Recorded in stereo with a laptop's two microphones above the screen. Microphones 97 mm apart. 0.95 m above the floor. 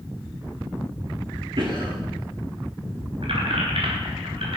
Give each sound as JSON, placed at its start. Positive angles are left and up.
{"t": 1.6, "sound": "a cough", "side_deg": -55, "distance_m": 1.7}
{"t": 3.2, "sound": "keys jangling", "side_deg": -65, "distance_m": 3.5}